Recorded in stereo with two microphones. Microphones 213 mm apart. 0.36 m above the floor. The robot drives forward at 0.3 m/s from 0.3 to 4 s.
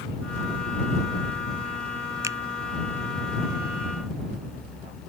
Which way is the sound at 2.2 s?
15° right (ahead or behind).